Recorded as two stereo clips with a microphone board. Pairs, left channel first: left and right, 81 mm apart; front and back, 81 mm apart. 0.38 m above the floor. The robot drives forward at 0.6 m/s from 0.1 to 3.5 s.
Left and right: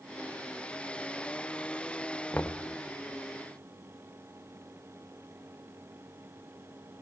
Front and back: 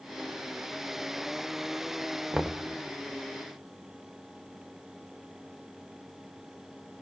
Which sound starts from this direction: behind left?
Knocking, at 2.3 s.